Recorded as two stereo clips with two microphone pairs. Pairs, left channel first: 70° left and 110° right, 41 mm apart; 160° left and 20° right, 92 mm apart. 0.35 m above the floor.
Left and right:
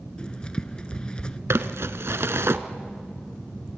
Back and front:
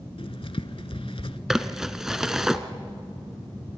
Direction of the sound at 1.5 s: 105° right.